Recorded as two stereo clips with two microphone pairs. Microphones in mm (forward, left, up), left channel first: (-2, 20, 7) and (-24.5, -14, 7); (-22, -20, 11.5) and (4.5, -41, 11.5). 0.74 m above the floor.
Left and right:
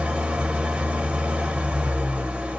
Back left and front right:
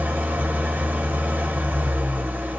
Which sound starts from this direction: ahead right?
An engine running, at 0.0 s.